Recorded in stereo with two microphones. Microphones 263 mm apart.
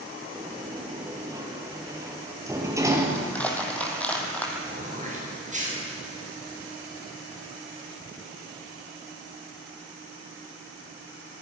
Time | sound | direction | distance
0.3 | a sliding door | 10° right (ahead or behind) | 3 m
3.1 | crushing | 5° left (ahead or behind) | 3.5 m
4.7 | throat clearing | 30° right (ahead or behind) | 7 m